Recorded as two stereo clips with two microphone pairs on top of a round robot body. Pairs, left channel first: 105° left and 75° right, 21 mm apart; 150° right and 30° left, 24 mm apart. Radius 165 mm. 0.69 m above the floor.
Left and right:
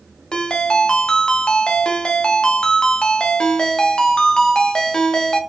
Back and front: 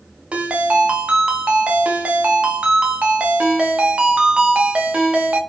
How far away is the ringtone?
About 0.8 m.